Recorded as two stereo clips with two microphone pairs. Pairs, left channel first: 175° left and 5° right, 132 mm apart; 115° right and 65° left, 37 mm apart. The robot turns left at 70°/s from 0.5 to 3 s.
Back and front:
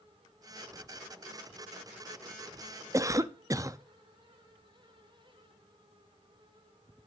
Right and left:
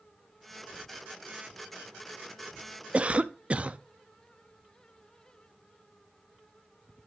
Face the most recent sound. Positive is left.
turn(degrees=40)